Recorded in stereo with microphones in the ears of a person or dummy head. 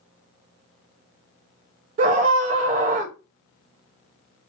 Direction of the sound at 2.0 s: 40° right (ahead or behind).